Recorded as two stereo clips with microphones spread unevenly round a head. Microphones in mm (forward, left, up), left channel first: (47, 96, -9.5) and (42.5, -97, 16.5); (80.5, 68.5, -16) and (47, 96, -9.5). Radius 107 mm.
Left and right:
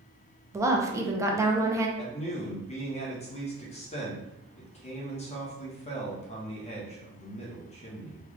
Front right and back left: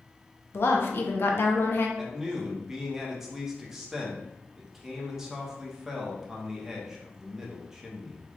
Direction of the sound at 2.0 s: 55° left.